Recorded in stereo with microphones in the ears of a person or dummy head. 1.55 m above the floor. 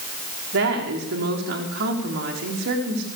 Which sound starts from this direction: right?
A woman speaking, at 0.5 s.